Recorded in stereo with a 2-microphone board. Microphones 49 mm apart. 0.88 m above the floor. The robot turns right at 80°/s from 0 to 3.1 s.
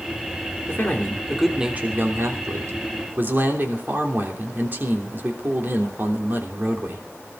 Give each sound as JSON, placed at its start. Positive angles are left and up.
{"t": 0.7, "sound": "a man speaking", "azimuth_deg": 125, "distance_m": 3.0}